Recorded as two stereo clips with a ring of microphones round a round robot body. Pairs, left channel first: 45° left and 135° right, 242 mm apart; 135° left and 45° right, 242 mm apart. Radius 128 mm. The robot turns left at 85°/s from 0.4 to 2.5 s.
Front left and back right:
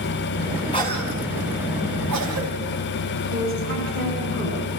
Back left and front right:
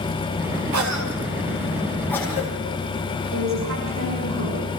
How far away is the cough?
About 3.5 m.